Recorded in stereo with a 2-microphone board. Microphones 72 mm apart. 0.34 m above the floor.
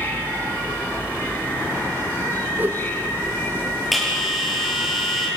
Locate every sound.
0.0 s an insect: 30° left (ahead or behind), 2 m
2.6 s a whoosh: 25° right (ahead or behind), 1.0 m
3.9 s a bell: centre (ahead or behind), 7.5 m